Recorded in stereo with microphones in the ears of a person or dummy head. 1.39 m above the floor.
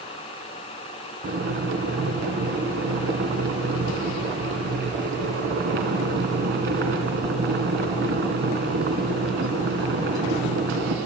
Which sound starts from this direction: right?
Boiling, at 1.2 s.